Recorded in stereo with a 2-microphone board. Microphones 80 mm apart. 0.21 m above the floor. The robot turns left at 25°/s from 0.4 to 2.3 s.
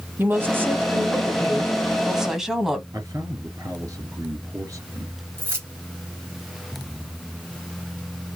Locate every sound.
0.2 s a woman speaking: 120° right, 1.3 m; by 2.8 s 170° right, 1.3 m
2.9 s a man speaking: 40° right (ahead or behind), 3 m
5.4 s keys jangling: 30° right (ahead or behind), 1.9 m